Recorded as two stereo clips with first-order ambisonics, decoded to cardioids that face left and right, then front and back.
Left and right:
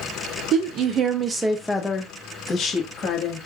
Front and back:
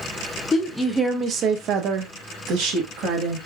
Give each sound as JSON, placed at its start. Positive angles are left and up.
{"t": 0.5, "sound": "a woman speaking", "azimuth_deg": -70, "distance_m": 0.6}